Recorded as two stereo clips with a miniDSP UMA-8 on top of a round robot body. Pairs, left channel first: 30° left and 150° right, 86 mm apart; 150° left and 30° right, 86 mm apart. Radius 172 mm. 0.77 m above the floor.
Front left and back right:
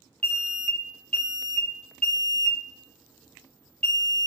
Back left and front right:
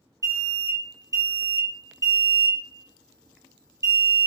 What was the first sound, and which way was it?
An alarm, 40° right.